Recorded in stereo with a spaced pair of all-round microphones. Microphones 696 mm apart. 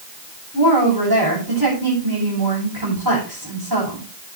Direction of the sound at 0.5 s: 30° right (ahead or behind).